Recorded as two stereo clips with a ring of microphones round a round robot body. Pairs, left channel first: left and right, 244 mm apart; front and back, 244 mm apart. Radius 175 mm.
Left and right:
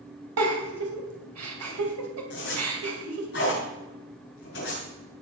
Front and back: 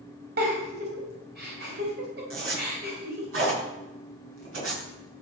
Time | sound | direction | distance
0.4 | a giggle | 120° right | 2.5 m
2.3 | a zipper | 150° left | 5.5 m